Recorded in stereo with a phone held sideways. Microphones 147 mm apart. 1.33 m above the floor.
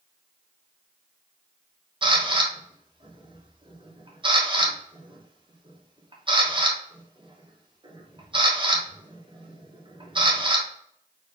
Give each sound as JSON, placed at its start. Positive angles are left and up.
{"t": 2.0, "sound": "a camera shutter", "side_deg": -35, "distance_m": 1.0}